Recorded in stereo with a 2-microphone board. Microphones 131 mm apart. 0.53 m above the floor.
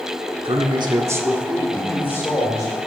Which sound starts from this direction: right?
A man speaking, at 0.5 s.